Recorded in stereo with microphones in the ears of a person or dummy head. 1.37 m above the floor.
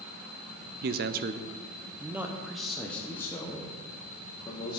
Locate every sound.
0.8 s a man speaking: 55° right (ahead or behind), 0.6 m; by 4.8 s 20° left (ahead or behind), 1.9 m